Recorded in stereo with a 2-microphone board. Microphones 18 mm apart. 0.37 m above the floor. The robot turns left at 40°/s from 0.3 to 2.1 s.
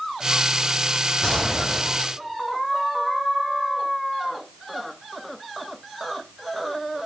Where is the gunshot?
155° left, 7 m; by 2.1 s 120° left, 7 m.